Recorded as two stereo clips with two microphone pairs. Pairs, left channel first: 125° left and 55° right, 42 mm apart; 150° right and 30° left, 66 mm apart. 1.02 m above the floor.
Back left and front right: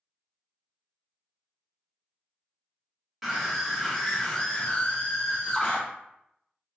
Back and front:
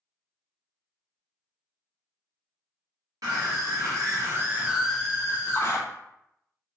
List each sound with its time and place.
3.2 s a scream: 30° left, 1.7 m; by 5.8 s straight behind, 1.1 m